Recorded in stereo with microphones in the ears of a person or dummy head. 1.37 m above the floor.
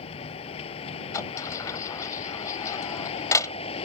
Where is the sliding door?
20° left (ahead or behind).